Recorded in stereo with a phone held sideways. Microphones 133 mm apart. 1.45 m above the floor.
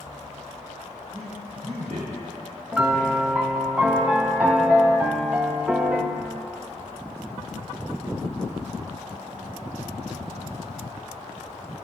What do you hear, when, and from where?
1.1 s a man speaking: 70° right (ahead or behind), 5 m; by 3.7 s 65° right (ahead or behind), 7 m
2.7 s a piano: 10° right (ahead or behind), 1.0 m